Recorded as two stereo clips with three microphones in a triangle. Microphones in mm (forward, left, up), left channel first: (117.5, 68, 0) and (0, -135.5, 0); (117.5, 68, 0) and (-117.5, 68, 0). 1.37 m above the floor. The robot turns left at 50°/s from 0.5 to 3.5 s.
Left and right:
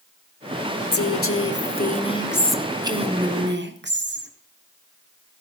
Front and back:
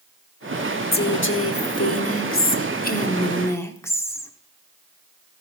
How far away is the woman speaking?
About 0.8 m.